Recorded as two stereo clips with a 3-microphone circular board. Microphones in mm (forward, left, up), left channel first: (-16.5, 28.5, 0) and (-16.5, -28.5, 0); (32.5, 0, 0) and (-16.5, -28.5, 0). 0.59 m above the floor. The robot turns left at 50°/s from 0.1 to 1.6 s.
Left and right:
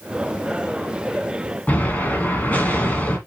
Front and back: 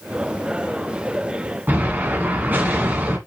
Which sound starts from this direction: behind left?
An explosion, at 1.7 s.